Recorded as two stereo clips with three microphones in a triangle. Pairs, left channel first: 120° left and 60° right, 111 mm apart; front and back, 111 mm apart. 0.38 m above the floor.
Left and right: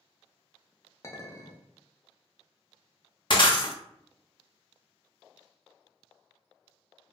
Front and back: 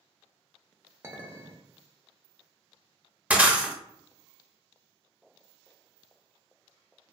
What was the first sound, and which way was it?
A clink, 145° left.